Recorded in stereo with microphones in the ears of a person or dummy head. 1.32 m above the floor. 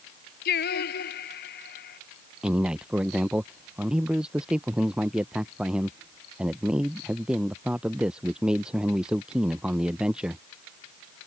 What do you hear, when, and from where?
0.5 s singing: 60° left (ahead or behind)
2.4 s a man speaking: 5° right (ahead or behind)